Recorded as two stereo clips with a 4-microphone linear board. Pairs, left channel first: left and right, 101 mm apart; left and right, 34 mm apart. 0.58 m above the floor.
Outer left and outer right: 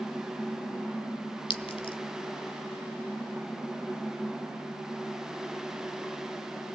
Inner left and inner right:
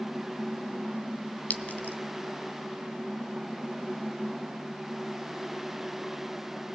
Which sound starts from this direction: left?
A clink, at 1.5 s.